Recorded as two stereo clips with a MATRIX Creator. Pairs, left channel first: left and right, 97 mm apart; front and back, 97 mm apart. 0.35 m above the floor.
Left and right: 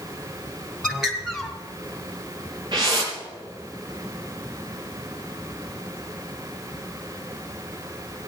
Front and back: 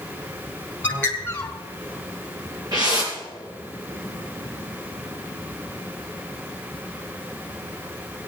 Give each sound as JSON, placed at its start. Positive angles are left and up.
{"t": 0.8, "sound": "a bird", "azimuth_deg": -10, "distance_m": 1.5}
{"t": 2.7, "sound": "a whoosh", "azimuth_deg": -135, "distance_m": 4.5}